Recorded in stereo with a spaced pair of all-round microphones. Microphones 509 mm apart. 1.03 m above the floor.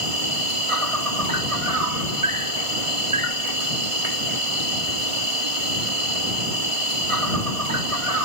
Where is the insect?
85° right.